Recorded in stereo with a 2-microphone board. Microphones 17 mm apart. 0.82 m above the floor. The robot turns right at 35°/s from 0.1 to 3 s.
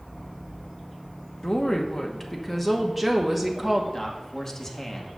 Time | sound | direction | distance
1.4 | a woman speaking | 120° left | 0.9 m
3.9 | a man speaking | 30° left (ahead or behind) | 1.3 m